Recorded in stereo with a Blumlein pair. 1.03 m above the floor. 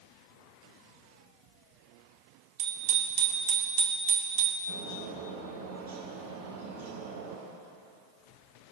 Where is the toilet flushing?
I don't hear a toilet flushing.